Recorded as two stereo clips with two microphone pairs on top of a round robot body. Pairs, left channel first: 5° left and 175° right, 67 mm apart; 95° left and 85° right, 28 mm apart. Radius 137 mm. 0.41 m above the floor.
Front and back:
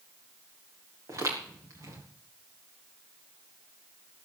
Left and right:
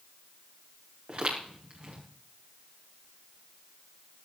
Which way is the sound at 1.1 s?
135° right.